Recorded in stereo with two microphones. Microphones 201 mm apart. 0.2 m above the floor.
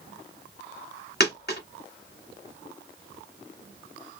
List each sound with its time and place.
1.2 s a dropped coin: 50° left (ahead or behind), 1.4 m